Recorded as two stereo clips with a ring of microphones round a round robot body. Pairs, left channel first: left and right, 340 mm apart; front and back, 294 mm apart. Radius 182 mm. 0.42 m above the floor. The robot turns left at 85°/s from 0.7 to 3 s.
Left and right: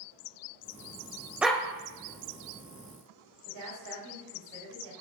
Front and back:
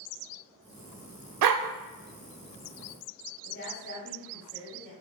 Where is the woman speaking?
60° right, 3.5 m.